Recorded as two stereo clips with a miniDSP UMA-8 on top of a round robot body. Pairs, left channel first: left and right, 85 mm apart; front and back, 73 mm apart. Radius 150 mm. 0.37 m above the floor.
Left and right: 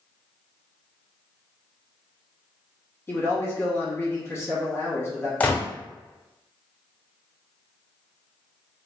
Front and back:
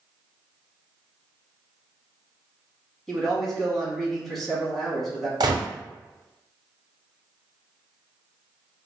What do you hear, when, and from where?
3.1 s a man speaking: 80° left, 1.5 m
5.4 s a gunshot: 160° left, 0.8 m